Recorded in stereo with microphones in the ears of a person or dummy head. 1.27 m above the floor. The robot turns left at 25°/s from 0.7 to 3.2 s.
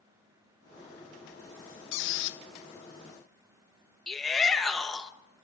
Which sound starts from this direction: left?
A squeak, at 1.9 s.